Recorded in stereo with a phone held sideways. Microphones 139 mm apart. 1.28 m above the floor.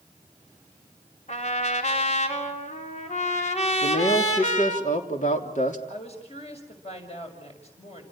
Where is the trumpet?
55° left (ahead or behind), 3.5 m.